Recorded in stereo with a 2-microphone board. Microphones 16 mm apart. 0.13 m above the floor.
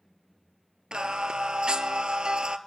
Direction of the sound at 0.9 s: 65° right (ahead or behind).